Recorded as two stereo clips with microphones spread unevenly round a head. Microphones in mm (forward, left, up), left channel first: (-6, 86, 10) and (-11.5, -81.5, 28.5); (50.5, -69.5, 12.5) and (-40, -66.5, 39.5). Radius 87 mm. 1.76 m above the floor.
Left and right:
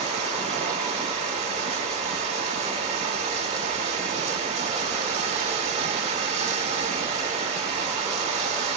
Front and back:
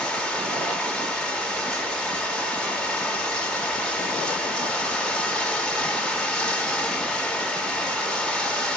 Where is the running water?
100° right, 1.7 m.